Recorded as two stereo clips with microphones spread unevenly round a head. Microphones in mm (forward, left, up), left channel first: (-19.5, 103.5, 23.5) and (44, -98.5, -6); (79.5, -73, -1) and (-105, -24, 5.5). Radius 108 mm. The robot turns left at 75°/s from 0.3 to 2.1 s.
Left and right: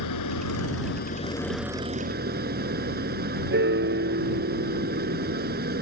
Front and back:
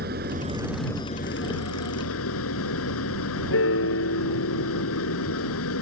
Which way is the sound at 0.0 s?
110° left.